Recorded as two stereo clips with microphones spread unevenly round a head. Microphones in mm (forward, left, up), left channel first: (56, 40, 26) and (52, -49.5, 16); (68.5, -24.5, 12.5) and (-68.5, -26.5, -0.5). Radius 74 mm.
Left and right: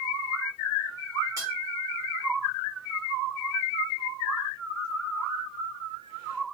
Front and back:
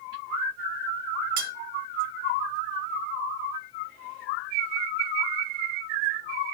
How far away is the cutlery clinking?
About 0.9 m.